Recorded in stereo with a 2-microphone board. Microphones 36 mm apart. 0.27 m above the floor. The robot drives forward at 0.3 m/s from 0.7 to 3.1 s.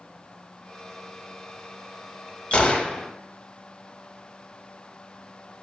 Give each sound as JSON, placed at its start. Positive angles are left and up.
{"t": 2.5, "sound": "a gunshot", "side_deg": 35, "distance_m": 0.6}